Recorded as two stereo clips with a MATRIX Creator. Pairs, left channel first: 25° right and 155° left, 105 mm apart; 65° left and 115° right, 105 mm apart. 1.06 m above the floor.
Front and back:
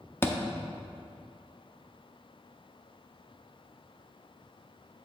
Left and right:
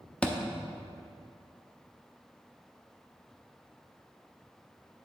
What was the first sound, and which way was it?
A thud, straight ahead.